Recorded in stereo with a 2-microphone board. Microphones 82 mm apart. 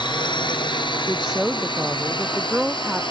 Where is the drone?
70° left (ahead or behind); by 3.1 s 75° left (ahead or behind).